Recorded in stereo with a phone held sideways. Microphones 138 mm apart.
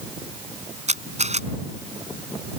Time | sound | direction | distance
0.9 | a camera shutter | 55° right (ahead or behind) | ?